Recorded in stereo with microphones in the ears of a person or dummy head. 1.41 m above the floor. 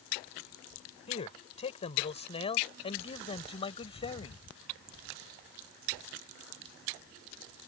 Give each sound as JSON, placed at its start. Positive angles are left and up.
{"t": 1.1, "sound": "a man speaking", "side_deg": 35}